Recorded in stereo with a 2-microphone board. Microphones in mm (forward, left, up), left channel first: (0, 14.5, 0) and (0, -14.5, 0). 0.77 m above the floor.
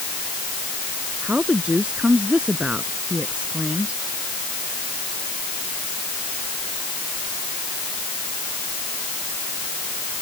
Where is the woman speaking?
40° right (ahead or behind).